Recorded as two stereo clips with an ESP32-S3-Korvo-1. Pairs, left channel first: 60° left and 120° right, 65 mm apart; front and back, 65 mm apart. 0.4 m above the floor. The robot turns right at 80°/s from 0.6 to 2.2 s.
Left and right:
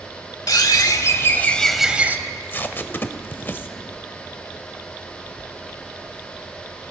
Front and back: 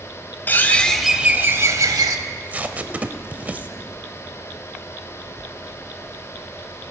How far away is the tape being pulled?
About 0.5 m.